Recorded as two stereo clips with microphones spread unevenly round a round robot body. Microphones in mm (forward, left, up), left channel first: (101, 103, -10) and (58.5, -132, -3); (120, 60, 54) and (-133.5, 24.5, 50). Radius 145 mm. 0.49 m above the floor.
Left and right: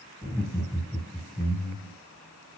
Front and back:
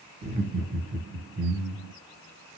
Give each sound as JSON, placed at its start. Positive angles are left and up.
{"t": 0.2, "sound": "laughter", "azimuth_deg": 160, "distance_m": 1.4}